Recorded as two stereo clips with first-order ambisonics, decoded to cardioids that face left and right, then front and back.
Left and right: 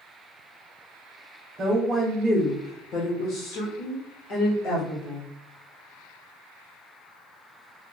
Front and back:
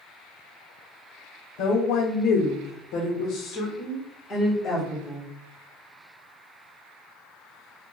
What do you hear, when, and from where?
1.6 s a woman speaking: 20° right, 0.8 m; by 5.3 s 80° left, 1.8 m